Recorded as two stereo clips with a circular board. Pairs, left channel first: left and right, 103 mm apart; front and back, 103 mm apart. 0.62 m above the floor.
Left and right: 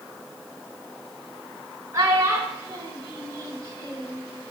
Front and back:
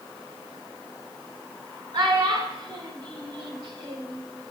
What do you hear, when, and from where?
1.9 s a child speaking: 145° right, 1.3 m